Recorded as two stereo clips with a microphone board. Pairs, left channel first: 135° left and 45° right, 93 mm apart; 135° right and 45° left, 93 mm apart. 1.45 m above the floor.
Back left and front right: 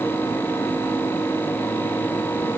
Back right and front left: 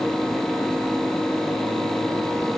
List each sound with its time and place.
Only background noise.